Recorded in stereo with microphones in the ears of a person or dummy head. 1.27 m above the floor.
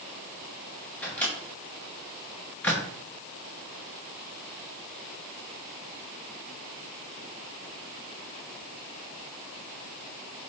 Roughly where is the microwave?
Centre.